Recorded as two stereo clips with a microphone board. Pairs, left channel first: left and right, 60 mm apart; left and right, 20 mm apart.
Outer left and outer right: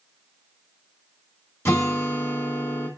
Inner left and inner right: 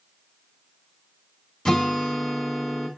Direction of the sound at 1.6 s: 40° left (ahead or behind).